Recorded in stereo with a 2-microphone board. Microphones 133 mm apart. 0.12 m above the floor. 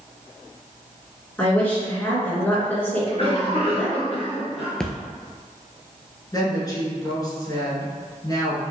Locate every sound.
1.4 s a woman speaking: 15° left (ahead or behind), 1.7 m
3.0 s a cough: 45° left (ahead or behind), 1.4 m
4.8 s a splash: 5° left (ahead or behind), 0.6 m
6.3 s a woman speaking: 25° left (ahead or behind), 1.2 m